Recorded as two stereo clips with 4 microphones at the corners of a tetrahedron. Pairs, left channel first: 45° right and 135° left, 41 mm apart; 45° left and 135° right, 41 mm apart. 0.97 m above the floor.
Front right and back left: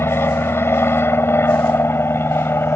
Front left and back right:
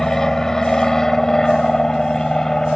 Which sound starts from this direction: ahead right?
An aircraft, at 0.0 s.